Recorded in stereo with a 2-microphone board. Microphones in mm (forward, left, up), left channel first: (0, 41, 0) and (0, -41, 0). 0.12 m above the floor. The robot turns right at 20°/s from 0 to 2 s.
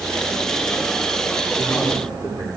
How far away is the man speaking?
About 9.5 m.